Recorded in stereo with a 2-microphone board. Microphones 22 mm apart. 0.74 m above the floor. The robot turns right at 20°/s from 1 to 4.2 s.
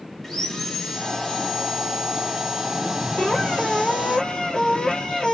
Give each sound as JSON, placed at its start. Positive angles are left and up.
{"t": 0.2, "sound": "sawing", "azimuth_deg": 165, "distance_m": 1.0}
{"t": 3.2, "sound": "a squeak", "side_deg": 65, "distance_m": 1.4}